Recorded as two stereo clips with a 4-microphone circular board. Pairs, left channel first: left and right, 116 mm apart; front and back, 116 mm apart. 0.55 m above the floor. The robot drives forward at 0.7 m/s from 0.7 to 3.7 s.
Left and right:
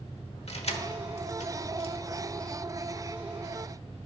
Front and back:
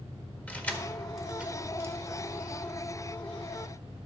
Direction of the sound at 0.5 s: 75° left.